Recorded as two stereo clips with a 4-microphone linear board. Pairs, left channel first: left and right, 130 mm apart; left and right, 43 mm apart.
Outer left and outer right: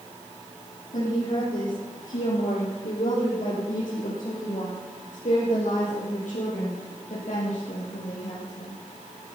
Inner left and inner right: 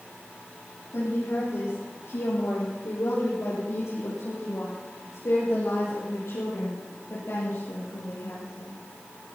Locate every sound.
0.9 s a woman speaking: 80° left, 8.5 m; by 8.8 s 60° left (ahead or behind), 5 m